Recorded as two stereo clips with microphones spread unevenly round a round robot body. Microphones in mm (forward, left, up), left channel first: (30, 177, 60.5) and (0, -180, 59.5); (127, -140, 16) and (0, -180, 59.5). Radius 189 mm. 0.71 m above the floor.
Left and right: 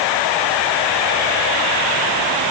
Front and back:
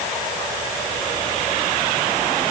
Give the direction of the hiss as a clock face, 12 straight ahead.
I don't hear a hiss.